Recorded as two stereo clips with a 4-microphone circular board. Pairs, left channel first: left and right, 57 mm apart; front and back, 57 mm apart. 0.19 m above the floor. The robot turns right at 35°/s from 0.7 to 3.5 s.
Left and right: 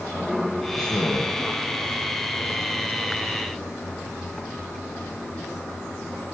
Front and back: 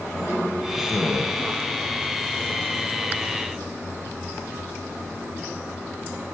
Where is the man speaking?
100° left, 5.5 m; by 1.3 s 120° left, 5.5 m.